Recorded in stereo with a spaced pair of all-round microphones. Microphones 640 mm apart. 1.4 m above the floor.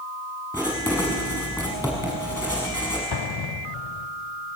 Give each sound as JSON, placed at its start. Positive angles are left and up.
{"t": 0.5, "sound": "writing", "side_deg": 0, "distance_m": 5.5}
{"t": 3.1, "sound": "an explosion", "side_deg": 40, "distance_m": 0.5}